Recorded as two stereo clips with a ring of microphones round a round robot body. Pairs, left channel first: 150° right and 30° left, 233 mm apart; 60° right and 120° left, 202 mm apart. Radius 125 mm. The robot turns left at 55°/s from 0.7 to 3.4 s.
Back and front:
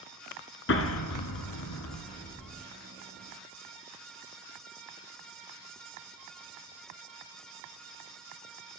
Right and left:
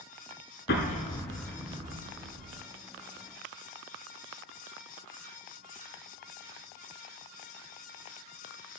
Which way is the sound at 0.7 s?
110° right.